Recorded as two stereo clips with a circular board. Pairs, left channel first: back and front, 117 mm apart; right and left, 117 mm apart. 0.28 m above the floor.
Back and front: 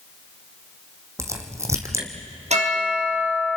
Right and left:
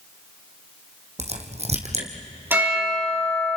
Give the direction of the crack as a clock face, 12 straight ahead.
10 o'clock.